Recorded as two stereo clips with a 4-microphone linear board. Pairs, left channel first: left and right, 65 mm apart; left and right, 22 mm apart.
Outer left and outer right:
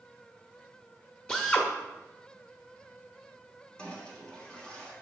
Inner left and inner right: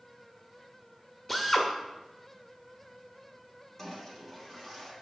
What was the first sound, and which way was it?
A drill, 10° left (ahead or behind).